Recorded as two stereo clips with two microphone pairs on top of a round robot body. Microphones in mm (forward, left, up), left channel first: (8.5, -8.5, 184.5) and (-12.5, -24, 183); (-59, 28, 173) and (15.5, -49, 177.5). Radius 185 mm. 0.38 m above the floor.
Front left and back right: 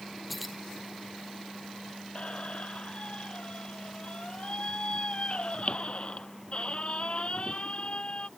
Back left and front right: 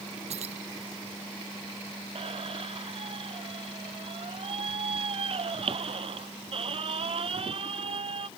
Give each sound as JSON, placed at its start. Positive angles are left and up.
{"t": 0.3, "sound": "keys jangling", "azimuth_deg": -55}
{"t": 2.1, "sound": "a squeak", "azimuth_deg": -10}